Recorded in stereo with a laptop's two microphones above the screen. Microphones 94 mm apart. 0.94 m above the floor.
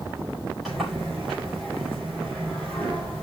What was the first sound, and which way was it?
A sliding door, centre (ahead or behind).